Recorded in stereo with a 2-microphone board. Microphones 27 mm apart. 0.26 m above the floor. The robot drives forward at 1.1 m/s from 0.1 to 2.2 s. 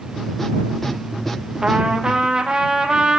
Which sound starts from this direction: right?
A trumpet, at 1.6 s.